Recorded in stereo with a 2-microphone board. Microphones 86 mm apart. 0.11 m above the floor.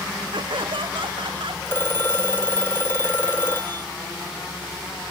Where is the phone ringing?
25° left (ahead or behind).